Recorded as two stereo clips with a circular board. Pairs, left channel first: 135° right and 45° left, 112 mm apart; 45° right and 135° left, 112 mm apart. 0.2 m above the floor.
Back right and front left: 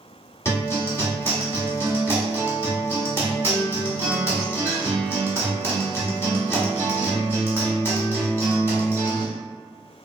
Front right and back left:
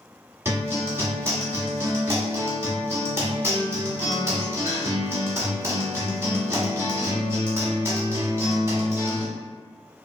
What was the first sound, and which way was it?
A guitar, straight behind.